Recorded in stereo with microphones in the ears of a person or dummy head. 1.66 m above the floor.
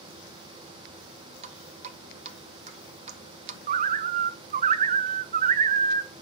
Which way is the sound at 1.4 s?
35° right (ahead or behind).